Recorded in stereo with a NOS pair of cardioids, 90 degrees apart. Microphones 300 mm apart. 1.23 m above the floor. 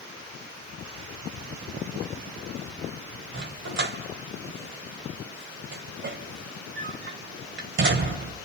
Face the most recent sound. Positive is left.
turn(degrees=-40)